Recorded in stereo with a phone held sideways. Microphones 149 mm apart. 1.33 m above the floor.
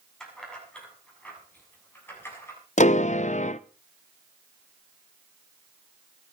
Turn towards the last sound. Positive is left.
turn(degrees=55)  # may be behind; listen again after turning